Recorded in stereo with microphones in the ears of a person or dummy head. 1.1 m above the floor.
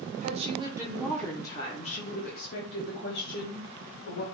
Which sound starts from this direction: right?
A woman speaking, at 0.2 s.